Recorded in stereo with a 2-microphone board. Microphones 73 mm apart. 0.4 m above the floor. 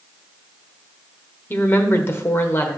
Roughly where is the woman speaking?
Left.